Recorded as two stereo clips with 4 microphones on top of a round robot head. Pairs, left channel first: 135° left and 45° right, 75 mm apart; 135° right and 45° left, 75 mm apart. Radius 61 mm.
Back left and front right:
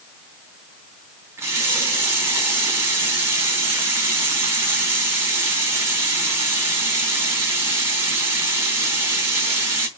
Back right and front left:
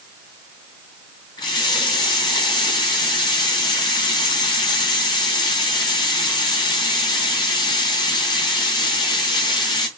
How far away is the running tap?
About 4 m.